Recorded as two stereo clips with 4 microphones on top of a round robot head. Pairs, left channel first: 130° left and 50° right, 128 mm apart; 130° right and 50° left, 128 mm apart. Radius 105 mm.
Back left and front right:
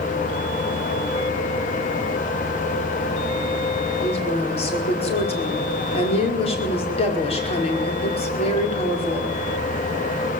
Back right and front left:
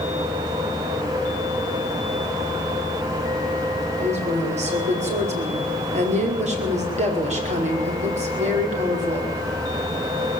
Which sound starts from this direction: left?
A woman speaking, at 4.0 s.